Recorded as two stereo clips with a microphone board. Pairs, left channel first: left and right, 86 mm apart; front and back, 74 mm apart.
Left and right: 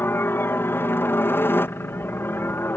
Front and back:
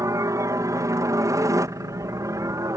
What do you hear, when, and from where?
0.0 s a helicopter: 150° left